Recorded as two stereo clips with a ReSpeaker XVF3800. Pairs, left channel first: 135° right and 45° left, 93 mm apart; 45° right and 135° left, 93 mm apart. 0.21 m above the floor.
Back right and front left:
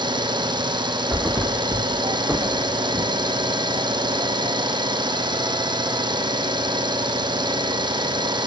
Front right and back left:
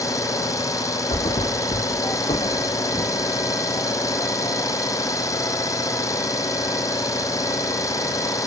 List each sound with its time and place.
0.0 s an engine running: 10° left, 2.5 m
1.1 s a thud: 35° right, 3.5 m